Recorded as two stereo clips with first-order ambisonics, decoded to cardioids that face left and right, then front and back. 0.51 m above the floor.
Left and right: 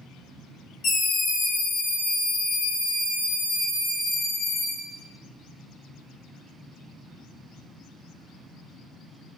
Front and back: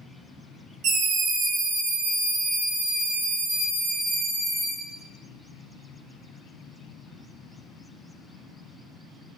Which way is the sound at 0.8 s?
140° left.